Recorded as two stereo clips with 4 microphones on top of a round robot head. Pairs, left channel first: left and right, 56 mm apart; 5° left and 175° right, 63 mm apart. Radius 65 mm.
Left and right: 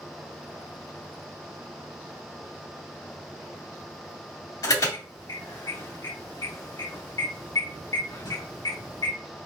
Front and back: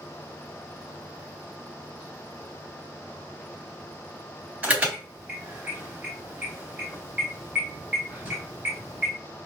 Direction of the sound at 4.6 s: 115° left.